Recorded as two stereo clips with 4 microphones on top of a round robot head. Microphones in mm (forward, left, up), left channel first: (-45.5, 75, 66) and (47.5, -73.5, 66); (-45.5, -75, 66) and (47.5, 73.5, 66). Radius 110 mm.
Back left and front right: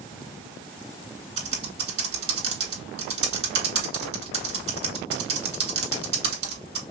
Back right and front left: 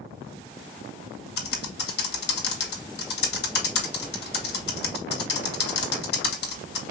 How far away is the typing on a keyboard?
About 2 m.